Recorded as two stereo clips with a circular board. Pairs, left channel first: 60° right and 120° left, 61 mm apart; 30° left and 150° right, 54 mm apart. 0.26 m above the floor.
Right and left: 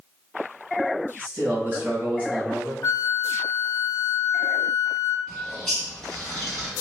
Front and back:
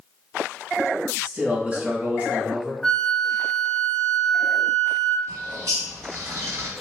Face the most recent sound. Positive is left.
turn(degrees=-135)